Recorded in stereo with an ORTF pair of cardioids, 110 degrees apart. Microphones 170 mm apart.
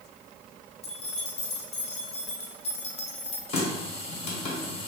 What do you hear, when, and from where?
0.8 s keys jangling: 40° left, 1.0 m
3.5 s a running tap: 40° left, 1.2 m